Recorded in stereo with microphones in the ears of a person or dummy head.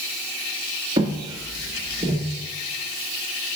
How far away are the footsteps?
About 1.2 m.